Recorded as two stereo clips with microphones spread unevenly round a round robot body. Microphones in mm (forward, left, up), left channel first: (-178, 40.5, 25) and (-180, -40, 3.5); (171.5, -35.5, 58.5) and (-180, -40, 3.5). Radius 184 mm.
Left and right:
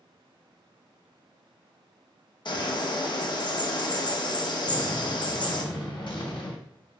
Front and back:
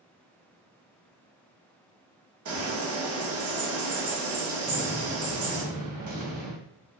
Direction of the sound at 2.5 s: 125° left.